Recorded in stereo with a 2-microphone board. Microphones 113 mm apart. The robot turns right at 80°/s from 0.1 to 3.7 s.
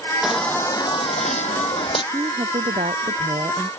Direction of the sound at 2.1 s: 145° right.